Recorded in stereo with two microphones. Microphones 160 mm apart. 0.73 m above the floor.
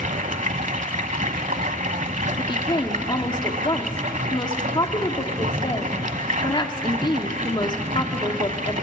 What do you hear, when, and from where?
0.0 s running water: 55° right (ahead or behind), 1.0 m
2.4 s a woman speaking: 30° left (ahead or behind), 1.8 m